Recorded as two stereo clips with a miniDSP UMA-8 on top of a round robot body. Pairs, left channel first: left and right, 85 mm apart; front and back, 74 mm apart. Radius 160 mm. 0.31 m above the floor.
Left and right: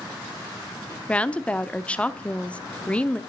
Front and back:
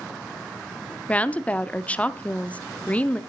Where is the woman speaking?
40° left, 0.9 m.